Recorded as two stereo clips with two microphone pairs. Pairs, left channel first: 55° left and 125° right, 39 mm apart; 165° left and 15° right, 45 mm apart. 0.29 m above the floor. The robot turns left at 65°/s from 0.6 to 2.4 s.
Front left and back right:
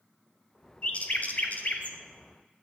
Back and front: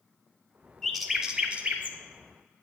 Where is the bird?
90° left, 0.7 m; by 2.0 s 15° left, 0.7 m.